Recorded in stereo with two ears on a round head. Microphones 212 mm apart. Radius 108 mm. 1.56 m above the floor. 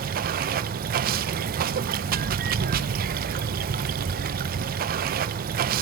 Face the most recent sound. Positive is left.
turn(degrees=-35)  # may be behind; listen again after turning